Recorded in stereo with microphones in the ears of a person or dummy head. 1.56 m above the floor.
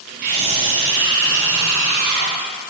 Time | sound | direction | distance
0.2 | a scream | 50° right (ahead or behind) | 1.3 m